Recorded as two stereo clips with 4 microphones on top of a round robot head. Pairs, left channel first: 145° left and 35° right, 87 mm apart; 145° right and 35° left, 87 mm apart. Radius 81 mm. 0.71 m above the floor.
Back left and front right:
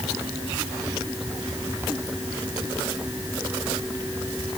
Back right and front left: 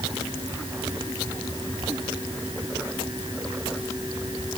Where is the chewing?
I don't hear chewing.